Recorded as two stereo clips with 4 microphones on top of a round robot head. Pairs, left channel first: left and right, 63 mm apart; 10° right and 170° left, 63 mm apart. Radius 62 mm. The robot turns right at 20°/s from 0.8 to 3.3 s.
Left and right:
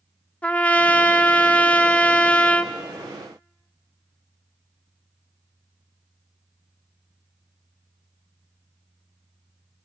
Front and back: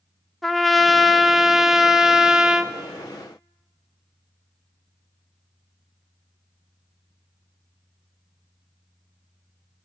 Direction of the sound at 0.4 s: 75° left.